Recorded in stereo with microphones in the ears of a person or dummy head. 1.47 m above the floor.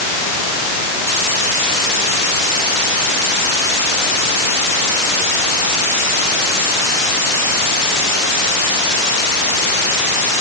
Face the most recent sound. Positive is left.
No sound to turn to.